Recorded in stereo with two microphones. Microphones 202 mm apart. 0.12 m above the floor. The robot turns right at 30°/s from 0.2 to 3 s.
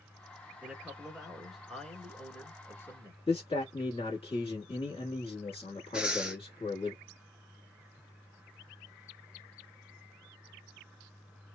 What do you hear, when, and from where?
0.6 s a man speaking: 10° right (ahead or behind), 1.2 m; by 3.2 s 15° left (ahead or behind), 1.2 m
3.3 s a man speaking: 30° left (ahead or behind), 1.2 m
5.9 s breathing: 5° right (ahead or behind), 0.5 m